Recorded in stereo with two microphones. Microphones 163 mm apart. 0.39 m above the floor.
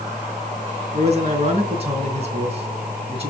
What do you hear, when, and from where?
0.9 s a man speaking: 40° right (ahead or behind), 3.5 m